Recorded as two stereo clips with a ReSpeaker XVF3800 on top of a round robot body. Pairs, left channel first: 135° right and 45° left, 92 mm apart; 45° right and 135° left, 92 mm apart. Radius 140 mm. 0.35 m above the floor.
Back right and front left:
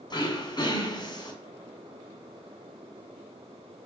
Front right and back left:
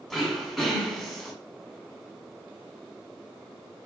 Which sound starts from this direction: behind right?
Throat clearing, at 0.1 s.